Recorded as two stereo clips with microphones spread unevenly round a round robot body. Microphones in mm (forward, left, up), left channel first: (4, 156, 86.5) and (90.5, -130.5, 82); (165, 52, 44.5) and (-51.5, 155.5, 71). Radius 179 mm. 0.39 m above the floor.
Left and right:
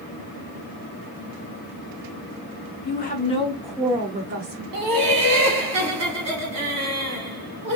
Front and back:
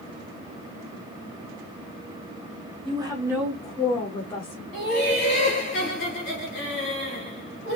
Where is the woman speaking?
90° left, 1.4 m; by 4.6 s 55° right, 1.4 m.